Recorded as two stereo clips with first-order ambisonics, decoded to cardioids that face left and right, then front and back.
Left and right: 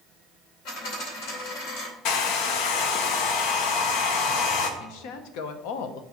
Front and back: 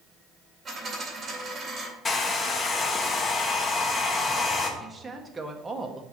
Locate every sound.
0.7 s a dropped coin: 105° left, 2.5 m
2.0 s a hair dryer: 70° left, 0.8 m
4.8 s a woman speaking: 100° left, 0.8 m